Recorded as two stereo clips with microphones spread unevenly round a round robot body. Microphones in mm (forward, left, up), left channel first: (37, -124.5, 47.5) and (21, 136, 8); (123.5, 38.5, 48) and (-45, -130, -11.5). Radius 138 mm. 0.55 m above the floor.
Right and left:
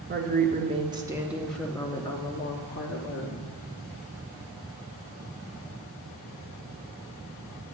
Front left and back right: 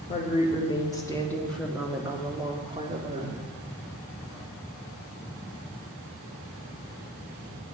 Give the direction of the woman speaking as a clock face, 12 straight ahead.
8 o'clock.